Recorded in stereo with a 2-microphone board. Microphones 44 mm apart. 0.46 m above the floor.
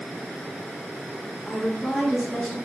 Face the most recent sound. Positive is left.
turn(degrees=0)  # may be behind; listen again after turning